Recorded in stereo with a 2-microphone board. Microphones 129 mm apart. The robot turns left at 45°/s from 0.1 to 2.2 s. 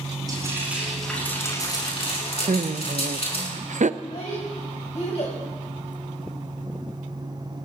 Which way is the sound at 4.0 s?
60° left (ahead or behind).